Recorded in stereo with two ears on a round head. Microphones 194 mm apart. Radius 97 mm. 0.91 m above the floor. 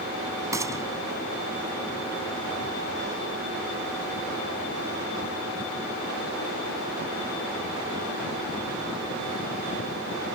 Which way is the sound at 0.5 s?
15° right (ahead or behind).